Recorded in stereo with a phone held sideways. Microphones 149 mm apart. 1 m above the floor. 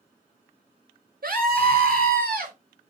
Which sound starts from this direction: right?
A scream, at 1.2 s.